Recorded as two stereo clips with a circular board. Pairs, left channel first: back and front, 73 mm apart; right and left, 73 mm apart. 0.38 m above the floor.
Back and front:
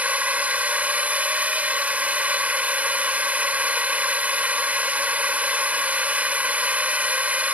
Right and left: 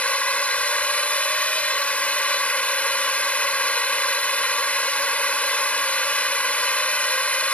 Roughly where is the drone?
Ahead right.